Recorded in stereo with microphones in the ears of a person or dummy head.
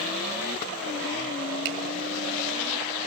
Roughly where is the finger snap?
Right.